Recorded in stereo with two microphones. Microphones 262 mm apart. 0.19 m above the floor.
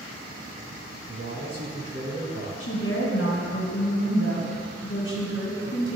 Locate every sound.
1.1 s a man speaking: 35° right (ahead or behind), 1.7 m
2.6 s a woman speaking: 55° left (ahead or behind), 1.7 m